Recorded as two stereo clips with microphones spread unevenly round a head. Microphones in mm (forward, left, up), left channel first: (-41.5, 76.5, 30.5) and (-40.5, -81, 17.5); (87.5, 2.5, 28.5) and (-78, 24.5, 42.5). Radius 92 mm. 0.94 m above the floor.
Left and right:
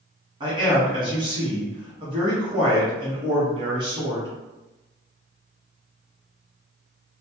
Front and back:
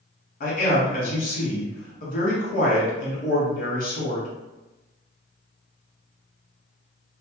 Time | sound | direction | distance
0.4 | a man speaking | 35° right | 1.2 m